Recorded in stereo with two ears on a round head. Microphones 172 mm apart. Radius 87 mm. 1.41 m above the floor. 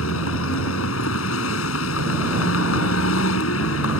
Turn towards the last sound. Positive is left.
turn(degrees=90)